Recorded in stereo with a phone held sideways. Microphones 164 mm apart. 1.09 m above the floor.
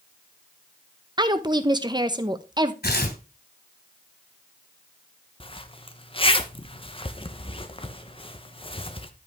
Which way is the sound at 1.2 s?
25° right (ahead or behind).